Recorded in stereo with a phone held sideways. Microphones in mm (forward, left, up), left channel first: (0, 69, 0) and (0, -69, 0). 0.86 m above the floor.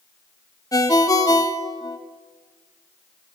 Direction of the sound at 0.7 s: 25° left (ahead or behind).